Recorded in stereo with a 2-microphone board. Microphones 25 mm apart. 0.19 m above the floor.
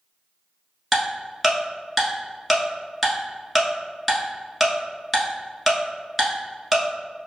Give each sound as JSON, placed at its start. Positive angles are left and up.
{"t": 0.9, "sound": "ticking", "side_deg": 0, "distance_m": 1.0}